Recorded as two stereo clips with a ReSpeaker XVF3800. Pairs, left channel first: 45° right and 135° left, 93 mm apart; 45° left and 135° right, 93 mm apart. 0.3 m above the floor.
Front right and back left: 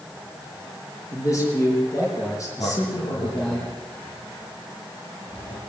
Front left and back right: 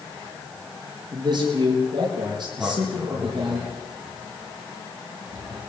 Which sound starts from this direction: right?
A man speaking, at 1.1 s.